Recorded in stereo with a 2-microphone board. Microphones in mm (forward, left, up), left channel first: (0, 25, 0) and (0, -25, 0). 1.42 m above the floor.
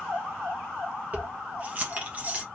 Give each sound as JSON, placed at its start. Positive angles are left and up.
{"t": 1.1, "sound": "keys jangling", "side_deg": -30, "distance_m": 1.0}